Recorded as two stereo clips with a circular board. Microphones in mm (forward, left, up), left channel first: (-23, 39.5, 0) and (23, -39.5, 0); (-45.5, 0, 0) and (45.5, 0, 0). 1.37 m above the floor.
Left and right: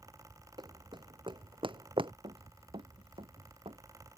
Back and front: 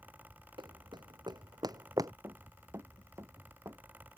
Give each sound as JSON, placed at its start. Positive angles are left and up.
{"t": 0.6, "sound": "running footsteps", "azimuth_deg": -30}
{"t": 2.2, "sound": "running footsteps", "azimuth_deg": -60}